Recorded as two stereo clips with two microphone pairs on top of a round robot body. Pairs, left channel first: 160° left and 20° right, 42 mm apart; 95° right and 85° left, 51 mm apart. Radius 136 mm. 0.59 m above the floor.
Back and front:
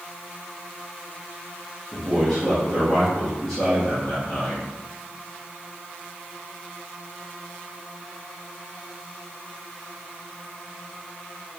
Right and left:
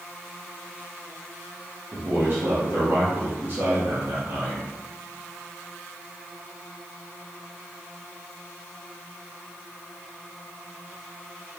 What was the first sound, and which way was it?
A man speaking, 90° left.